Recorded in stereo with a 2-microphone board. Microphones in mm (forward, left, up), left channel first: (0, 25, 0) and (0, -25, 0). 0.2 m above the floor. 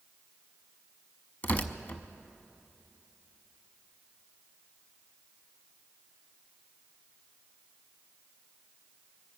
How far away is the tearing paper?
About 0.6 m.